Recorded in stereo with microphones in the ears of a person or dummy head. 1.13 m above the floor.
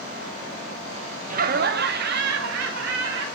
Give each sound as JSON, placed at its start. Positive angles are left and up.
{"t": 1.3, "sound": "laughter", "side_deg": -40, "distance_m": 0.5}